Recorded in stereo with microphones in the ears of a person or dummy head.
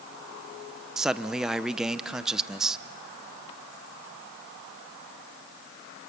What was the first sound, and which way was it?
A man speaking, centre (ahead or behind).